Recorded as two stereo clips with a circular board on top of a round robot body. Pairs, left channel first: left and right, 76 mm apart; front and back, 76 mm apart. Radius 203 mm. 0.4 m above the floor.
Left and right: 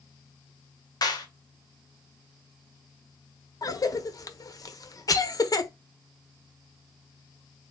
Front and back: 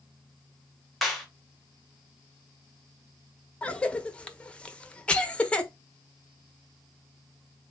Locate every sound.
1.0 s a clap: 90° left, 1.4 m
3.6 s a cough: 70° left, 1.0 m